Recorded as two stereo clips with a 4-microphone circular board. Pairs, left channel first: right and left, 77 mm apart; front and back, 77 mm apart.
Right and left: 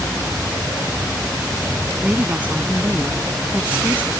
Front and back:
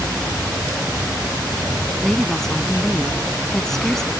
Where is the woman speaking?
75° left.